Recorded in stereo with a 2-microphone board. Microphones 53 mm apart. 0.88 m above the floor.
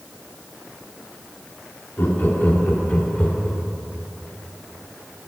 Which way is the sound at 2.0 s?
40° left (ahead or behind).